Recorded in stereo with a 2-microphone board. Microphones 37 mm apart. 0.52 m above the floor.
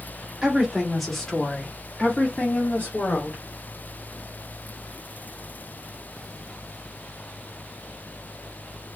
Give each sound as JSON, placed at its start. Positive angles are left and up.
{"t": 0.4, "sound": "a woman speaking", "side_deg": -15, "distance_m": 1.2}